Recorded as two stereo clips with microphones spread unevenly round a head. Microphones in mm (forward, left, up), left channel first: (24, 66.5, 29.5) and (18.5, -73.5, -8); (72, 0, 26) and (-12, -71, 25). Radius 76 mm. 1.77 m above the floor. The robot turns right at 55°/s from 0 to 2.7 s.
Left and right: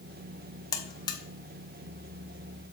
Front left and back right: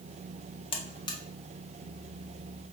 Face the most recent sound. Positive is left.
turn(degrees=170)